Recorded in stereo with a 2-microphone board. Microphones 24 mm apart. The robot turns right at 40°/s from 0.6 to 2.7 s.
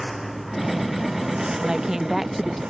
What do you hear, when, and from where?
0.0 s a lawn mower: 5° right (ahead or behind); by 2.7 s 80° right
1.6 s a woman speaking: 35° right; by 2.6 s 5° left